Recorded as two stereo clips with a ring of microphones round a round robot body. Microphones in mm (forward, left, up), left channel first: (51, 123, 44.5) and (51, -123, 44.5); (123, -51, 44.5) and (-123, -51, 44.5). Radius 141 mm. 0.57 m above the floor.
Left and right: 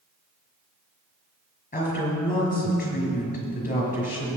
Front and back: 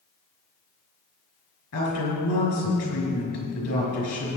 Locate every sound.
1.7 s a woman speaking: 30° left, 5.5 m